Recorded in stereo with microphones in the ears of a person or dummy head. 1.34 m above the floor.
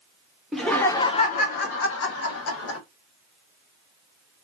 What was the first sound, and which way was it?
Laughter, 5° right (ahead or behind).